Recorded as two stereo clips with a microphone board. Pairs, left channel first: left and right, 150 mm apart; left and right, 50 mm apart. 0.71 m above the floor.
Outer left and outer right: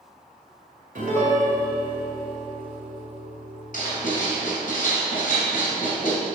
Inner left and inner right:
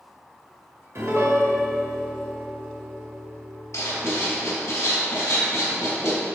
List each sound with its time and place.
0.9 s a piano: 60° right (ahead or behind), 2.0 m
3.7 s writing: 65° left (ahead or behind), 3 m